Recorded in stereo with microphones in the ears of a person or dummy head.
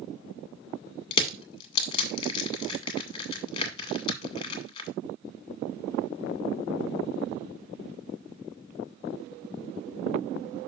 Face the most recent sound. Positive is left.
turn(degrees=35)  # may be behind; listen again after turning